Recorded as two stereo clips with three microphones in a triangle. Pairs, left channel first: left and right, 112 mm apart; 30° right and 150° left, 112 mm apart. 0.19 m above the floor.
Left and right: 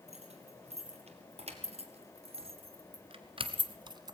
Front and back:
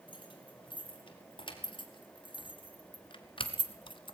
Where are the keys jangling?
75° right, 3.5 m; by 4.2 s 45° right, 1.0 m.